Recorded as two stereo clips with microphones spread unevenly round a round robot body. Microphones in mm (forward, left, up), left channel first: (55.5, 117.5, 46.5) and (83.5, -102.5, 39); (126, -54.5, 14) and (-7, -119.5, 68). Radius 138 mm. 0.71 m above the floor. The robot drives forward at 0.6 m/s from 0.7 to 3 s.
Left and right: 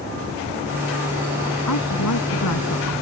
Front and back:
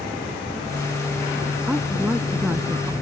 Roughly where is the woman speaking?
Behind left.